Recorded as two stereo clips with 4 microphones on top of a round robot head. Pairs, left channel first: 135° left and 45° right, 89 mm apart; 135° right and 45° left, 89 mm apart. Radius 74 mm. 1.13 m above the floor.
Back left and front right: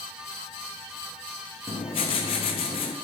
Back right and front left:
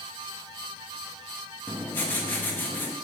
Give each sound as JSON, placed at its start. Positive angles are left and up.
{"t": 1.7, "sound": "writing", "azimuth_deg": 155, "distance_m": 0.5}